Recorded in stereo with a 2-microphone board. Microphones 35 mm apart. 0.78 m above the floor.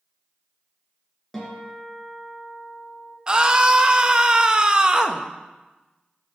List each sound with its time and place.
1.3 s a guitar: 10° left (ahead or behind), 2.5 m
3.3 s a scream: 25° right (ahead or behind), 0.6 m